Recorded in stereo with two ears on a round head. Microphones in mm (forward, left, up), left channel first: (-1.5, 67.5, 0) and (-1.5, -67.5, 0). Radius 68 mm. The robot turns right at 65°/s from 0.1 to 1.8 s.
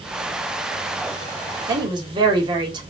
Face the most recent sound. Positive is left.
turn(degrees=-30)  # may be behind; listen again after turning